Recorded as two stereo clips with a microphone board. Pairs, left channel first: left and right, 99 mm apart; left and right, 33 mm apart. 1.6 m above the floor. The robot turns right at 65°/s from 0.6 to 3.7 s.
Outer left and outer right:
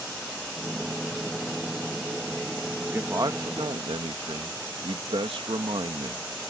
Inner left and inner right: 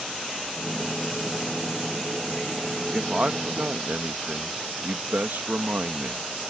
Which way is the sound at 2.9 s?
160° right.